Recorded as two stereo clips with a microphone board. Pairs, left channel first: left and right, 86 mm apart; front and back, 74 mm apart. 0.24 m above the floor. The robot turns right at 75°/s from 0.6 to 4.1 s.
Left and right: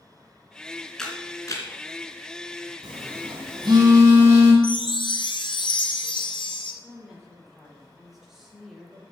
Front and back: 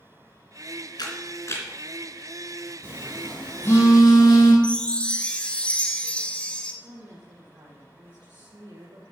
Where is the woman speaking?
175° right, 5.5 m.